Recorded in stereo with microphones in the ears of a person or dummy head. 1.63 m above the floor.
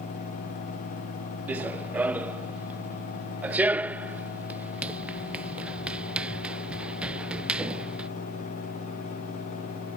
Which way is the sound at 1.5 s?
5° right (ahead or behind).